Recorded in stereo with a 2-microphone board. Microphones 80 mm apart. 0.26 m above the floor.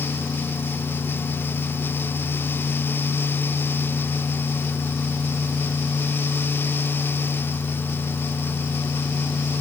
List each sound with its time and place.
Only background noise.